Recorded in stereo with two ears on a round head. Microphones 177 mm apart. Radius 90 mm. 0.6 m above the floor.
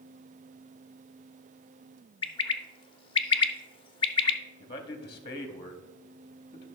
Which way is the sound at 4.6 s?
25° left (ahead or behind).